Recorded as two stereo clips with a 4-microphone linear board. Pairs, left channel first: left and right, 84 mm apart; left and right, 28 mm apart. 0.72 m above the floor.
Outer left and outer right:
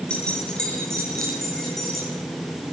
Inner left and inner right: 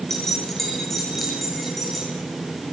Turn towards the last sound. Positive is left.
turn(degrees=0)  # may be behind; listen again after turning